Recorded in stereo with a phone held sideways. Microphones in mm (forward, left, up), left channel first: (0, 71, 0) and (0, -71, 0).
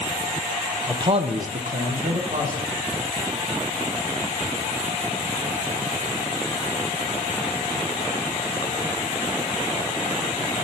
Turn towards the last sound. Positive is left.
turn(degrees=-50)  # may be behind; listen again after turning